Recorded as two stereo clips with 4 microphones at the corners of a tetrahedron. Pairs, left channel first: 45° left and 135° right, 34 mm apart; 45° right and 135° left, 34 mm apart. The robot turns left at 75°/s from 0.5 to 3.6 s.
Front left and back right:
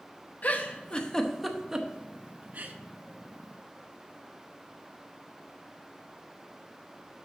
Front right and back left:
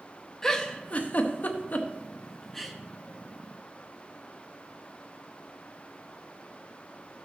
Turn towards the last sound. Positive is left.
turn(degrees=155)